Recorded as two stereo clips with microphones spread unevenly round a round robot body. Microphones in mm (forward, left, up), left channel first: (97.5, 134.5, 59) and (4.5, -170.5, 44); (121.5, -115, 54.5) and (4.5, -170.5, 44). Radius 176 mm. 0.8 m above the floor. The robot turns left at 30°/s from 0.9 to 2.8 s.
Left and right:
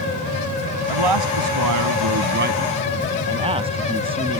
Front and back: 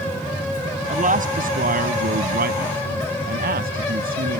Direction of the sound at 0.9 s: 125° right.